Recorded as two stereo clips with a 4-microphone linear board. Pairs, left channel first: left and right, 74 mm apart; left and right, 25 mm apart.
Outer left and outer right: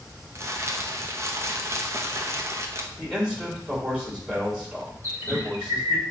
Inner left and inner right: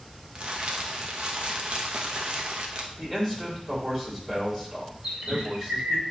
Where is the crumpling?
40° right (ahead or behind), 0.8 m.